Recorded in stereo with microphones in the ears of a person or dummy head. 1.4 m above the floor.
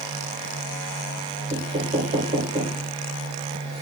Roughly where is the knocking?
Right.